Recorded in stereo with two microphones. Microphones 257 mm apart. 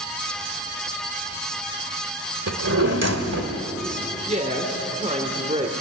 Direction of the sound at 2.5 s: 85° right.